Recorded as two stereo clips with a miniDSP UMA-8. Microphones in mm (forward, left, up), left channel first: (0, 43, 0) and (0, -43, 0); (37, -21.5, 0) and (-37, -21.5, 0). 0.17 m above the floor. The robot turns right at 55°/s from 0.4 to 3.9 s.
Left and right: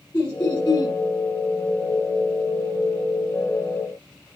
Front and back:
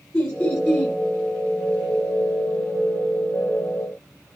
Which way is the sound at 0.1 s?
35° left.